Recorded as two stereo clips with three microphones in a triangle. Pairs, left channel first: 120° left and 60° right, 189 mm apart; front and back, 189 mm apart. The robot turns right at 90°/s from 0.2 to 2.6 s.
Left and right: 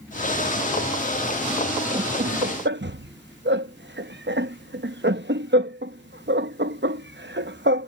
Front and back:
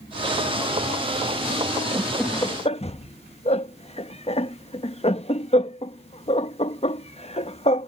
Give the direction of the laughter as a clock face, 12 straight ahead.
4 o'clock.